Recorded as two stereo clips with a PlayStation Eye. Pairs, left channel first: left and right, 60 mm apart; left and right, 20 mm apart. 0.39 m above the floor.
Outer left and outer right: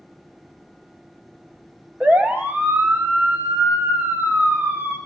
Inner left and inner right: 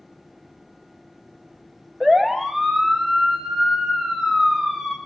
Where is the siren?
25° right (ahead or behind), 2 m; by 5.0 s 35° right (ahead or behind), 5 m.